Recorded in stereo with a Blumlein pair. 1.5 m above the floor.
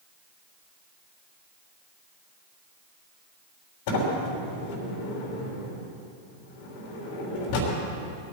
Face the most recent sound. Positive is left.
turn(degrees=50)